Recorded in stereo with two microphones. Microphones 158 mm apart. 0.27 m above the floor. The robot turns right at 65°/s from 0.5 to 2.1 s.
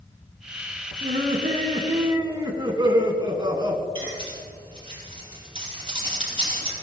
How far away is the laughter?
About 2 m.